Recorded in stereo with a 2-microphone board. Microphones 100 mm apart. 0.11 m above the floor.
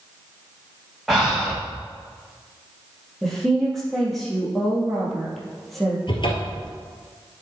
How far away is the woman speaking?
About 3 m.